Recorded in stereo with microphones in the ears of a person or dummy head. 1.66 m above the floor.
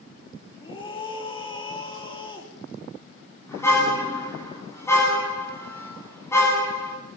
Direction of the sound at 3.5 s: 15° left (ahead or behind).